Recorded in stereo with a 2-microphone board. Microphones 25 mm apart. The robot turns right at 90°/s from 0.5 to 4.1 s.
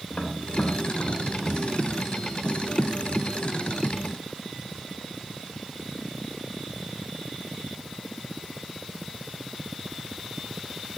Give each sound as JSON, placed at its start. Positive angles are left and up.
{"t": 0.1, "sound": "tapping", "side_deg": 70, "distance_m": 2.0}